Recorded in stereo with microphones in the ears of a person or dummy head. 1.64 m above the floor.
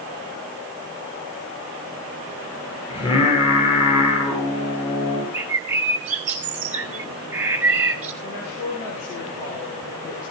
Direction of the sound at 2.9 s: 30° left (ahead or behind).